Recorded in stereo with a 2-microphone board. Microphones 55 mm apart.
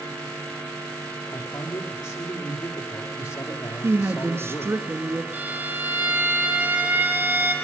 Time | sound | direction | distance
1.3 | a man speaking | 80° left | 7 m
3.8 | a woman speaking | 55° right (ahead or behind) | 1.7 m
5.3 | a violin | 30° right (ahead or behind) | 3.5 m